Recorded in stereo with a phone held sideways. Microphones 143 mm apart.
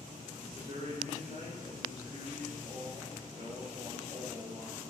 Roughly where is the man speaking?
Right.